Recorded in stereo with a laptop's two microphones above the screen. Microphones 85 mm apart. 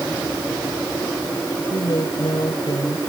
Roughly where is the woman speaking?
Left.